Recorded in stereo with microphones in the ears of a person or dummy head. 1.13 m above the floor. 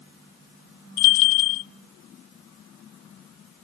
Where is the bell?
35° left (ahead or behind), 0.7 m.